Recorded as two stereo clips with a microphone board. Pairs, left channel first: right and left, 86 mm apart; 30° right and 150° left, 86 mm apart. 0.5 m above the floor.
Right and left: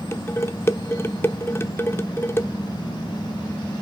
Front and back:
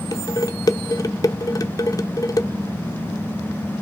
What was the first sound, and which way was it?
Dishes clattering, 45° right.